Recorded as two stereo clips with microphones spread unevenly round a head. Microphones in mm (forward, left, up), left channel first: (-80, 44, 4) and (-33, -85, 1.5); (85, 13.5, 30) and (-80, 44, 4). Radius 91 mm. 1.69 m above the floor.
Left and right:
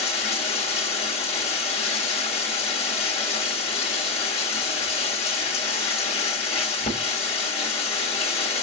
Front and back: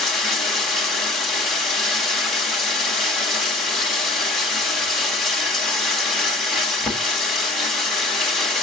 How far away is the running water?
About 1.5 m.